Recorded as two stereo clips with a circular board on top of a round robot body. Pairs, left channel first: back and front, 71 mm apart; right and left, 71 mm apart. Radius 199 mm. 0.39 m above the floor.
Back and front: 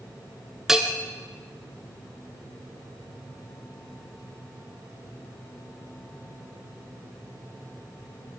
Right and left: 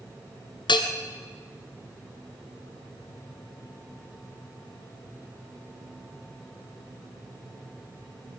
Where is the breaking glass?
I don't hear breaking glass.